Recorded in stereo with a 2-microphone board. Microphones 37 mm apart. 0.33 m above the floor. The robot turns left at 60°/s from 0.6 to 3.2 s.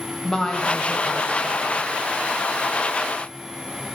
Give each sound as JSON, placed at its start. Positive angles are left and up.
{"t": 0.2, "sound": "a woman speaking", "azimuth_deg": 160, "distance_m": 1.3}